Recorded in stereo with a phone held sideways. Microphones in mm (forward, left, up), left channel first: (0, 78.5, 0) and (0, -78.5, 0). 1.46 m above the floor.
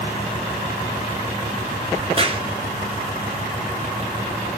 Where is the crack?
35° right (ahead or behind), 1.1 m.